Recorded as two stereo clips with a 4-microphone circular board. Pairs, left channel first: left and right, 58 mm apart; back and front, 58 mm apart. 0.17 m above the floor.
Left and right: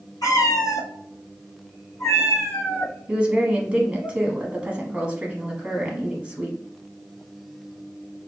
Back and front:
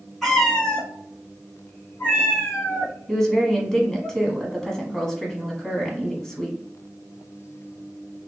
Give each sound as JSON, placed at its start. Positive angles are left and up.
{"t": 0.2, "sound": "a cat meowing", "azimuth_deg": 95, "distance_m": 0.9}
{"t": 3.1, "sound": "a woman speaking", "azimuth_deg": -110, "distance_m": 1.0}